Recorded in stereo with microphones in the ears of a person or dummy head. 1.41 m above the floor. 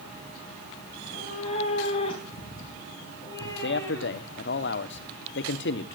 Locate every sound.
0.9 s a cat meowing: 50° left (ahead or behind), 3.5 m; by 4.4 s 20° left (ahead or behind), 5.5 m
3.6 s a man speaking: 55° left (ahead or behind), 1.0 m